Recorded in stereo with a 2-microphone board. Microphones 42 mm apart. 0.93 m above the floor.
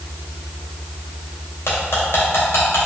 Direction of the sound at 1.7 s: 80° left.